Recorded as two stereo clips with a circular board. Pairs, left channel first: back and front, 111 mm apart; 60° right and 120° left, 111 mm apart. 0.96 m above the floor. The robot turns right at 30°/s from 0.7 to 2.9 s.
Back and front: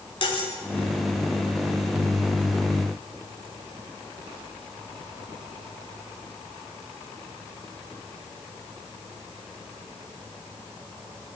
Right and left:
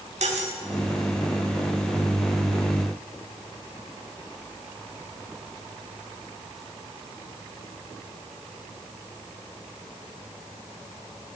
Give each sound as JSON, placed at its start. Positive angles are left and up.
{"t": 0.2, "sound": "cutlery clinking", "azimuth_deg": 135, "distance_m": 1.6}